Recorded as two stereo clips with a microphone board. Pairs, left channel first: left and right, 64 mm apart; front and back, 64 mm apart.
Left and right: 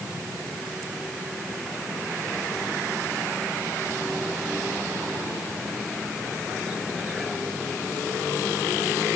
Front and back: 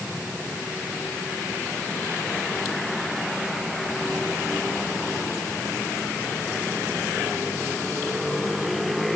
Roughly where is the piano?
I don't hear a piano.